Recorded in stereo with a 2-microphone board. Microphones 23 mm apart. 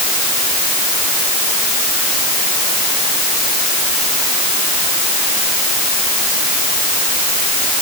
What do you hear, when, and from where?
Only background noise.